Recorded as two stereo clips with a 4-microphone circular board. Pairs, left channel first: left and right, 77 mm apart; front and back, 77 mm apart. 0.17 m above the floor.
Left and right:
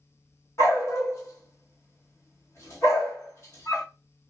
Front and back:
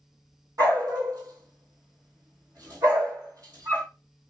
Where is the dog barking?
145° left, 1.5 m.